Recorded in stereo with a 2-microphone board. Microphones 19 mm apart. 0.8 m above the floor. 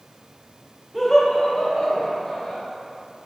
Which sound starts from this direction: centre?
Laughter, at 0.9 s.